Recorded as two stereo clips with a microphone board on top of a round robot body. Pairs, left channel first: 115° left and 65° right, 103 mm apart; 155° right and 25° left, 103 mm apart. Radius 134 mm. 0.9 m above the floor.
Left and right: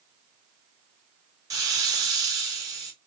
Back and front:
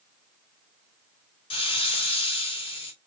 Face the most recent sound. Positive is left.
turn(degrees=-125)